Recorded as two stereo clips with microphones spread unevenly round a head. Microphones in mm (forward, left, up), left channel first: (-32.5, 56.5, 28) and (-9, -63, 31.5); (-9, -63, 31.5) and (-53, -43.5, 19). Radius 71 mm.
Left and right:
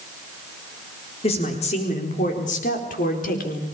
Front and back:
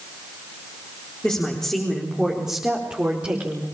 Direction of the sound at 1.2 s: 55° left.